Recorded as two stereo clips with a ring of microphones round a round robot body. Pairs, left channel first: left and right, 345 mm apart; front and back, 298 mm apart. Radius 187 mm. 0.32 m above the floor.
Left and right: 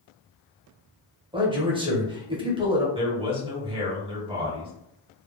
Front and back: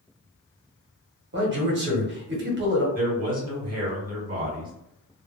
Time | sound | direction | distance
1.3 | a man speaking | 155° right | 1.0 m
3.0 | a man speaking | 150° right | 1.3 m